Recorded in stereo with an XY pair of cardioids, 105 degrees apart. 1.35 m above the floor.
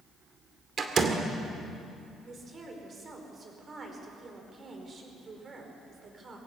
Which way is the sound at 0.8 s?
45° right.